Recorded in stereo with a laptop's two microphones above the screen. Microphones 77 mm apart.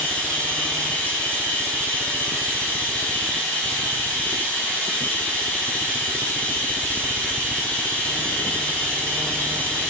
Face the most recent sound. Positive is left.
turn(degrees=20)  # may be behind; listen again after turning